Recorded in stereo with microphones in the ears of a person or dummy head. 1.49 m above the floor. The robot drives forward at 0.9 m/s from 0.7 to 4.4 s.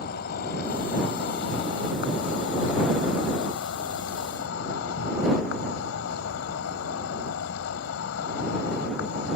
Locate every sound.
0.0 s an insect: 70° left (ahead or behind); by 9.4 s 75° left (ahead or behind)